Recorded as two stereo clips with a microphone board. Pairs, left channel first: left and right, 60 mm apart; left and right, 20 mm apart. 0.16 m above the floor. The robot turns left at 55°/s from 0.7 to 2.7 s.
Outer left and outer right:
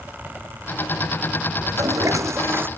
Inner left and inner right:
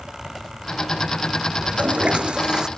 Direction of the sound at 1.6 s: 85° right.